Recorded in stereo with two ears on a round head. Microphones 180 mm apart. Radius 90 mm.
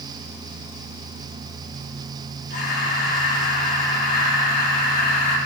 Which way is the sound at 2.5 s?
50° left (ahead or behind).